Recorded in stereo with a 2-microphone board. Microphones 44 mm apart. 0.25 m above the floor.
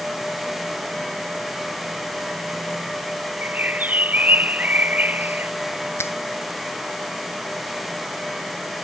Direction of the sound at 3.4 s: 35° right (ahead or behind).